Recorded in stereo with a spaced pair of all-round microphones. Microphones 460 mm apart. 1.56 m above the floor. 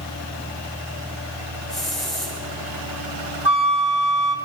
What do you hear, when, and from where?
1.7 s a hiss: centre (ahead or behind), 9 m
3.5 s a flute: 60° right (ahead or behind), 1.8 m